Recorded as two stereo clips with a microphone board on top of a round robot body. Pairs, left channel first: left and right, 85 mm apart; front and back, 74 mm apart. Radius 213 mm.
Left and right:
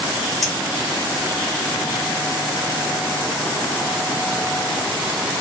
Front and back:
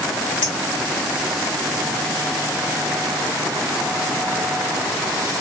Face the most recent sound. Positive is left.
turn(degrees=0)